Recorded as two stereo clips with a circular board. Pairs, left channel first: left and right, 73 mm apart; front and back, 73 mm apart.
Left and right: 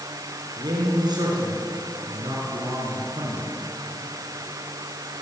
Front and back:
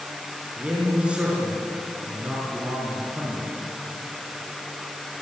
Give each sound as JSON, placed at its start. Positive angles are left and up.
{"t": 0.6, "sound": "a man speaking", "azimuth_deg": -105, "distance_m": 6.5}